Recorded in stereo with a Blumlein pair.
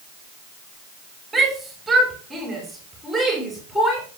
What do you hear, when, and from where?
1.3 s a shout: 10° right, 5 m; by 4.0 s 5° right, 6.5 m